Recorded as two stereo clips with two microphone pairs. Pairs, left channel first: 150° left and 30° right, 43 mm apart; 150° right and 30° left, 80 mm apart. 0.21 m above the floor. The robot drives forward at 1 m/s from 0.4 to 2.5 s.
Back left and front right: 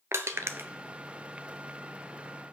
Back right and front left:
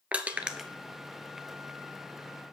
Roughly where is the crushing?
Ahead right.